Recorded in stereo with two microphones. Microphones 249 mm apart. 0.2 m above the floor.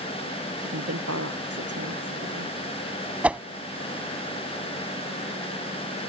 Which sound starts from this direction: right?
A woman speaking, at 0.6 s.